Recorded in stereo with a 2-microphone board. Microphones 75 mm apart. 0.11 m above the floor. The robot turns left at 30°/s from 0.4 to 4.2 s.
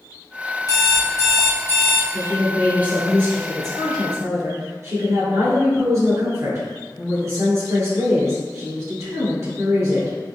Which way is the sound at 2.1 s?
10° right.